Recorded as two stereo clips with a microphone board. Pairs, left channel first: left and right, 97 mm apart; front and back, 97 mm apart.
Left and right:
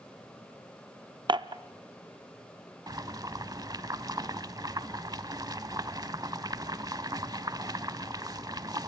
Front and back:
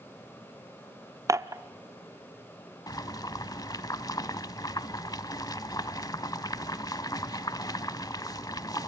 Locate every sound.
1.3 s dishes clattering: 125° right, 0.5 m
2.9 s boiling: 45° right, 0.7 m